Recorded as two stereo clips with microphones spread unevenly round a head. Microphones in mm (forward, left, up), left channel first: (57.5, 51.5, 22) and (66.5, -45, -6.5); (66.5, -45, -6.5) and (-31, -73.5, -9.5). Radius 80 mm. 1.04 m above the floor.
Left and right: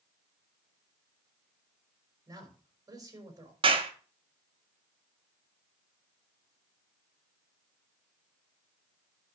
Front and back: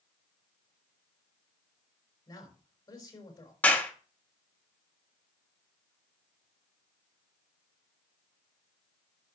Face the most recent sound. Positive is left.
turn(degrees=-55)